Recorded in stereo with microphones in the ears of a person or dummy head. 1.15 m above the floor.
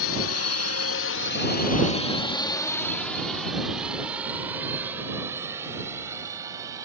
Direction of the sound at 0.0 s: 70° left (ahead or behind).